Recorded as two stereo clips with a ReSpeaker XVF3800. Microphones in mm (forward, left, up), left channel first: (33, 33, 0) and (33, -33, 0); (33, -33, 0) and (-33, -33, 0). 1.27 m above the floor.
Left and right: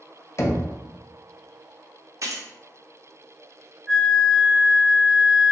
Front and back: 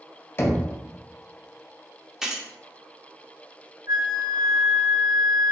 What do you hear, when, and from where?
0.4 s knocking: 45° left, 0.5 m
2.2 s keys jangling: 100° right, 0.6 m
3.9 s a flute: 175° right, 0.7 m